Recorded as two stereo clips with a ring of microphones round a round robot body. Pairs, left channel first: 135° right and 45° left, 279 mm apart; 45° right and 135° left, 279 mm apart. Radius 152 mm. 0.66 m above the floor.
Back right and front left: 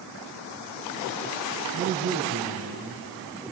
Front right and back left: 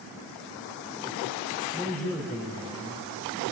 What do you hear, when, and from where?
1.7 s a man speaking: 130° right, 3 m